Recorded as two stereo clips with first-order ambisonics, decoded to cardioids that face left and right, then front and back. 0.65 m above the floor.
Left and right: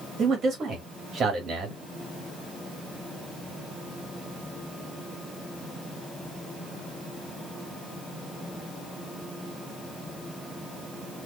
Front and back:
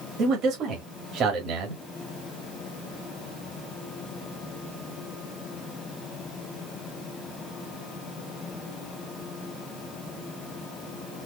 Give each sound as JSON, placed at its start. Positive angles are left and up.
{"t": 0.2, "sound": "a man speaking", "azimuth_deg": -145, "distance_m": 1.7}